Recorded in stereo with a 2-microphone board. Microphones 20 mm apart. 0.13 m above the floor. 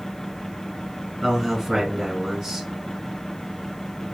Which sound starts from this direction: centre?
A man speaking, at 1.2 s.